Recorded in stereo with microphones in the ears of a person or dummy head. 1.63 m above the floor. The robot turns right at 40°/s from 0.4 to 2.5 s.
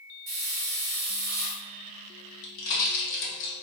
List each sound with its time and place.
0.3 s a hiss: 95° right, 1.0 m; by 1.6 s 45° right, 1.0 m
2.4 s a pop: 65° left (ahead or behind), 1.0 m